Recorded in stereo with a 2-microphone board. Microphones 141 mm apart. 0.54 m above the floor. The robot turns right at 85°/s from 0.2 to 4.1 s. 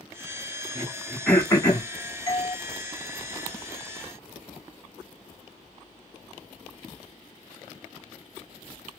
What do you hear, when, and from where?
0.8 s throat clearing: 30° right (ahead or behind), 1.1 m; by 1.9 s 50° left (ahead or behind), 1.1 m
2.3 s a doorbell: 40° right (ahead or behind), 1.4 m